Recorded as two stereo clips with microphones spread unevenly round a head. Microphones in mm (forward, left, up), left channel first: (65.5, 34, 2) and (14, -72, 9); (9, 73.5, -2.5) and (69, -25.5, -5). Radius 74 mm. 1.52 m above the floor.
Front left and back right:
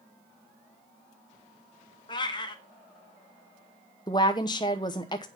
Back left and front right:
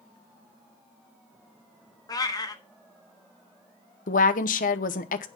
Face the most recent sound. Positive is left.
turn(degrees=130)